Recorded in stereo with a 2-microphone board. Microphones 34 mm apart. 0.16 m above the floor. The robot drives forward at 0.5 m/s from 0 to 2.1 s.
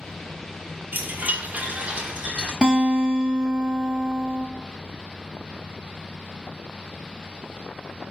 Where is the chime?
70° right (ahead or behind), 0.6 m; by 2.5 s 35° right (ahead or behind), 0.9 m.